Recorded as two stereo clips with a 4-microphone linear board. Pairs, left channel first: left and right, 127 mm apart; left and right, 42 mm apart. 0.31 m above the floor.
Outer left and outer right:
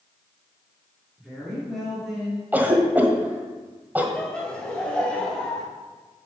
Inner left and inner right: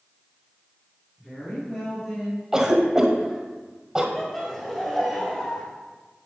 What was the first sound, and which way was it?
A woman speaking, 5° left (ahead or behind).